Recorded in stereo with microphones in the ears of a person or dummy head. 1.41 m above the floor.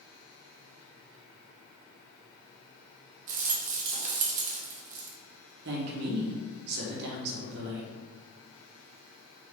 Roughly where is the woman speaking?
Right.